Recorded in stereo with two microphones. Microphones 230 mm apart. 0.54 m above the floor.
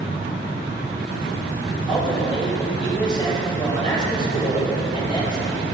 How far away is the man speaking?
About 4 m.